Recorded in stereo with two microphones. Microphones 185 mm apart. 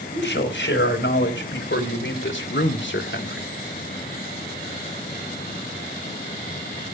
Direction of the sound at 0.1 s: 85° left.